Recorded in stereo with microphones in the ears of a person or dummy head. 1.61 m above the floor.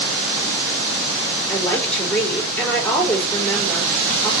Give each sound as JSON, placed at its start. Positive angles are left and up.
{"t": 1.5, "sound": "a woman speaking", "side_deg": 5, "distance_m": 3.5}